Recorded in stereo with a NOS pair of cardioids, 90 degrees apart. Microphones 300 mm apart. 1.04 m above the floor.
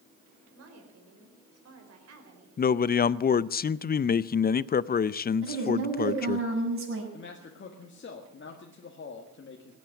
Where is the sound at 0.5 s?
55° right, 5 m.